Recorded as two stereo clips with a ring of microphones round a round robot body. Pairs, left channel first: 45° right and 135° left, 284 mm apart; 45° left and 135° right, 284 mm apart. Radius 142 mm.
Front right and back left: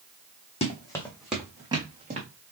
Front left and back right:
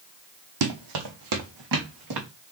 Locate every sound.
0.6 s running footsteps: 115° right, 1.2 m; by 2.3 s 160° right, 1.8 m